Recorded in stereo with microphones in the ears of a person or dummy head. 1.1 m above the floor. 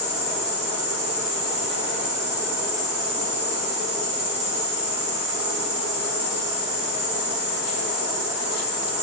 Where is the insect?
5° right (ahead or behind), 1.8 m.